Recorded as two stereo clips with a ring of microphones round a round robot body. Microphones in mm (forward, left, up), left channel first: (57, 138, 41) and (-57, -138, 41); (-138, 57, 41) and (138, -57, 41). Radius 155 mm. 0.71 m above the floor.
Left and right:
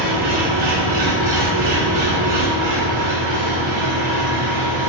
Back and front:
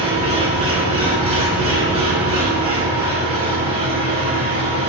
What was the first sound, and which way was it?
An engine running, 95° right.